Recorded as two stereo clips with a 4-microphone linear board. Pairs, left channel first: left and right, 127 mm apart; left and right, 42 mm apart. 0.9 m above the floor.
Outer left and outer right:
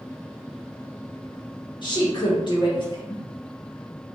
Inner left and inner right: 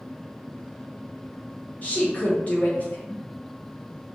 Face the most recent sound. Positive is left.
turn(degrees=40)  # may be behind; listen again after turning